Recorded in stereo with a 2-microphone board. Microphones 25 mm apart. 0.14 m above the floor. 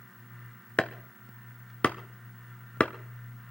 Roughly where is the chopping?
Left.